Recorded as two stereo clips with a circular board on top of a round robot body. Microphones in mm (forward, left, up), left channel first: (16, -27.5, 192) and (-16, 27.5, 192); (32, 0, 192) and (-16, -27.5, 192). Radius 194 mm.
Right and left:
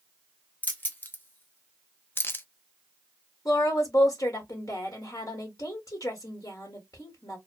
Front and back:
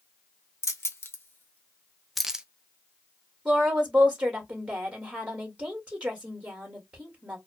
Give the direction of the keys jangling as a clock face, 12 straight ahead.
12 o'clock.